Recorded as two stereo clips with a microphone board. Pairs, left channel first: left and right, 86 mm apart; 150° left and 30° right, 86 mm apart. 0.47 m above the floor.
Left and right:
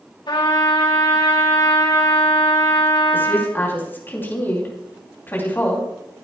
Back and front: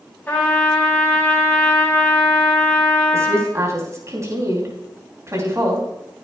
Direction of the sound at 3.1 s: 25° left.